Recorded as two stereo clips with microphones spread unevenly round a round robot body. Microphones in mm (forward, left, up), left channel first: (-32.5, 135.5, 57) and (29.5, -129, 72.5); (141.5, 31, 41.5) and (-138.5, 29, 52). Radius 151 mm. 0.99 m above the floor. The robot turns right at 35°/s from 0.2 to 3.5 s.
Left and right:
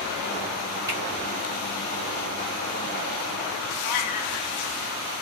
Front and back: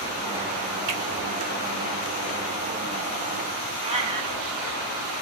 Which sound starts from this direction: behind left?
A cat meowing, at 3.8 s.